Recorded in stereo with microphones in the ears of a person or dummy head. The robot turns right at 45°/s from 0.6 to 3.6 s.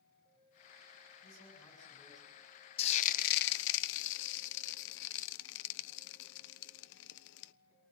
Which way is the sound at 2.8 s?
35° left (ahead or behind).